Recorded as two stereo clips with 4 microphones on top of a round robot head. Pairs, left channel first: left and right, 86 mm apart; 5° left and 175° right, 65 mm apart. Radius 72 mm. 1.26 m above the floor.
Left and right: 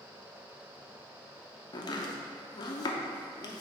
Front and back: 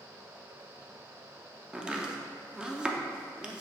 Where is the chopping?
110° left, 0.6 m.